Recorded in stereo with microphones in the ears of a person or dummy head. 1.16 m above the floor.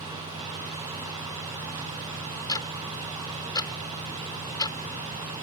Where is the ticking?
20° left (ahead or behind).